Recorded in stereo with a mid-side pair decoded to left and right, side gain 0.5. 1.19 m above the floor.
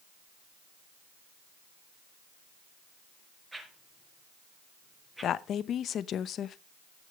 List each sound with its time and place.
3.5 s a whoosh: 15° right, 4.5 m
5.2 s a woman speaking: 55° left, 0.7 m